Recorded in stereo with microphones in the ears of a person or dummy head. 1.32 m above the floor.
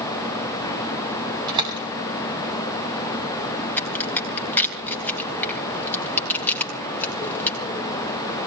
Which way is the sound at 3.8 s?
5° left (ahead or behind).